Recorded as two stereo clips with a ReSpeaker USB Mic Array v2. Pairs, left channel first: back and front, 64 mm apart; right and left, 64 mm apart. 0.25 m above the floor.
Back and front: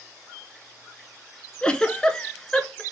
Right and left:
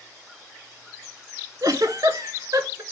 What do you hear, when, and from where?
1.6 s a giggle: 105° left, 0.6 m